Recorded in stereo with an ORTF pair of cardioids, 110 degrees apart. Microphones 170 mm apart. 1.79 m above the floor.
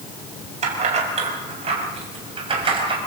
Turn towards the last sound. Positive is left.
turn(degrees=-30)